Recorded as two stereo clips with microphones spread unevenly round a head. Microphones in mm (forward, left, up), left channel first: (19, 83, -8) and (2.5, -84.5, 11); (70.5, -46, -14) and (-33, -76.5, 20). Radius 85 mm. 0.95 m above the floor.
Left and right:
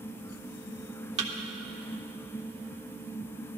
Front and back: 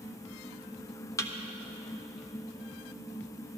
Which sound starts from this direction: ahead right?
A thud, at 1.2 s.